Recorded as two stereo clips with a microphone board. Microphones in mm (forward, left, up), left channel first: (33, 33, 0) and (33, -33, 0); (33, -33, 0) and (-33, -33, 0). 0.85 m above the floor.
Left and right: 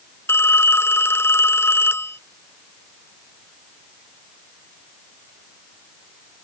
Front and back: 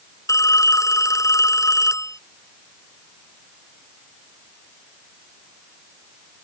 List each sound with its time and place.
0.3 s a phone ringing: 35° left